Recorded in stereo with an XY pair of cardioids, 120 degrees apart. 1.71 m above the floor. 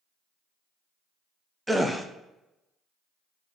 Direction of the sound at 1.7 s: 5° right.